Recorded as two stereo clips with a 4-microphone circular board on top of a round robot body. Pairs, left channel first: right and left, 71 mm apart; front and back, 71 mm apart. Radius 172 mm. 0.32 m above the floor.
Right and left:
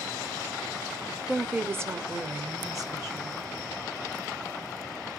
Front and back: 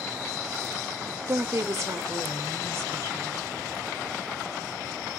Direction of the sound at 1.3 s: 160° left.